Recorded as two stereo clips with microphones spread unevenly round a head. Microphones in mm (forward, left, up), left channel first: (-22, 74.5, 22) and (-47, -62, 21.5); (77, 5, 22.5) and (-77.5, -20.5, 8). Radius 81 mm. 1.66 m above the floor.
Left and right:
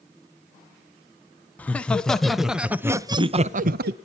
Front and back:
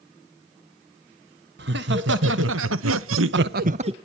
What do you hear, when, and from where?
1.6 s laughter: 160° left, 1.6 m; by 3.9 s 110° right, 0.6 m